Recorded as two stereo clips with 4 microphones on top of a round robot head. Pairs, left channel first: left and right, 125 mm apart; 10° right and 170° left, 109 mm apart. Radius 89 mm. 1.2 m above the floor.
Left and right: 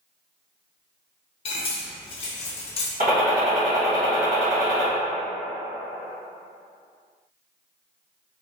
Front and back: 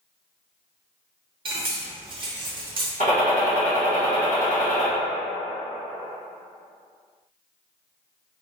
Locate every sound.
1.4 s cutlery clinking: 130° left, 0.7 m
3.0 s a gunshot: 65° right, 1.7 m